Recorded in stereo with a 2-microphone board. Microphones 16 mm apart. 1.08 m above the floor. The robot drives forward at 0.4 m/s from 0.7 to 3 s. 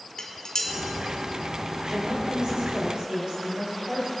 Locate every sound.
0.2 s dishes clattering: 55° left (ahead or behind), 1.8 m
1.9 s a woman speaking: 70° right (ahead or behind), 4.5 m; by 4.1 s 75° right (ahead or behind), 4.5 m